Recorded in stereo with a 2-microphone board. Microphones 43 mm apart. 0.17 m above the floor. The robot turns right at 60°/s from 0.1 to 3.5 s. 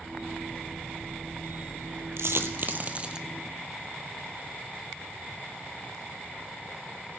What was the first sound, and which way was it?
A dropped coin, 75° right (ahead or behind).